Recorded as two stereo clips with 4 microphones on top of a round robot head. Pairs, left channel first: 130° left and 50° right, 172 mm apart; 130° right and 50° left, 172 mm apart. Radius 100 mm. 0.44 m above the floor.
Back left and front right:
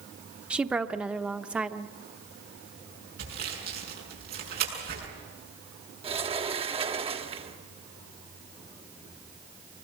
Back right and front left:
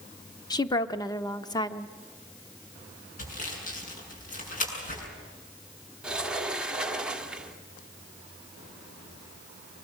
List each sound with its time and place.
0.5 s a woman speaking: 125° right, 0.9 m
3.2 s sawing: 85° right, 7 m
6.0 s a sliding door: 30° right, 1.4 m